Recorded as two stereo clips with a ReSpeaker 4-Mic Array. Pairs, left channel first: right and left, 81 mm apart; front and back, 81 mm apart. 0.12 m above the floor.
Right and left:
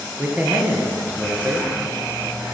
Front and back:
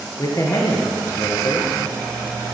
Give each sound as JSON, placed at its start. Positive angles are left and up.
{"t": 0.2, "sound": "a man speaking", "azimuth_deg": 20, "distance_m": 1.8}